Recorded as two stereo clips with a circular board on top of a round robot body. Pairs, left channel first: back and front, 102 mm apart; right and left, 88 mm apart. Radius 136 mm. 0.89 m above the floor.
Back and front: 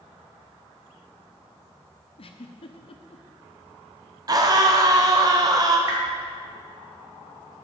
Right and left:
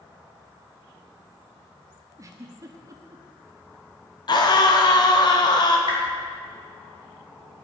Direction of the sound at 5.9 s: 60° right.